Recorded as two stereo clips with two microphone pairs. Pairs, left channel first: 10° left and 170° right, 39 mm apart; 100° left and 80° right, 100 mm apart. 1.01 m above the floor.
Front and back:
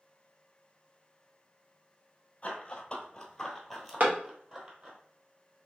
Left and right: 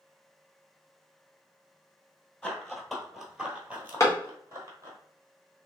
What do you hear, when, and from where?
2.4 s running footsteps: 25° left, 1.1 m; by 5.0 s 125° right, 1.4 m
4.0 s a clap: 150° left, 1.2 m